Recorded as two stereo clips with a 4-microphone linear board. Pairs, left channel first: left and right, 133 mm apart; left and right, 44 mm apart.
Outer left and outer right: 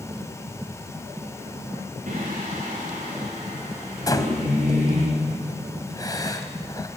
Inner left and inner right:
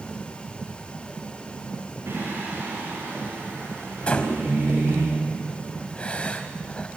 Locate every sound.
2.1 s singing: 75° right (ahead or behind), 9.5 m
4.1 s breathing: 30° left (ahead or behind), 1.9 m